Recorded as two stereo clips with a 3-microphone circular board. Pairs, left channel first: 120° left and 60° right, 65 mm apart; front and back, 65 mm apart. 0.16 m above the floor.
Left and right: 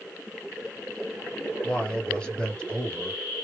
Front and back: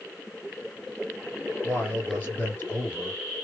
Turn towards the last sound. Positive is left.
turn(degrees=50)